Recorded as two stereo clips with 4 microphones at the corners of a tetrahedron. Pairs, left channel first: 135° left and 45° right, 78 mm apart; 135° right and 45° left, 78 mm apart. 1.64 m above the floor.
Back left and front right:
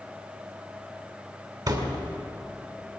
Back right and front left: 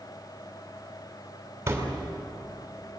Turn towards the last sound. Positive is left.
turn(degrees=-15)